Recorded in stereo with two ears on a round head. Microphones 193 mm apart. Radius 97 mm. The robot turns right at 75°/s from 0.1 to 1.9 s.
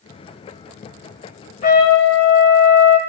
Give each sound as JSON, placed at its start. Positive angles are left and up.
{"t": 1.6, "sound": "a trumpet", "side_deg": 35, "distance_m": 1.5}